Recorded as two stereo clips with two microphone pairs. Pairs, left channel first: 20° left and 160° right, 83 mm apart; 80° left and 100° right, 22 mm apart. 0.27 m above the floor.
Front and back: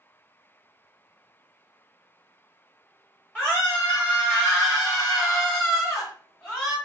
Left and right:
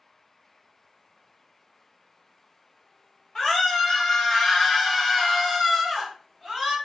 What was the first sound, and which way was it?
A scream, 100° left.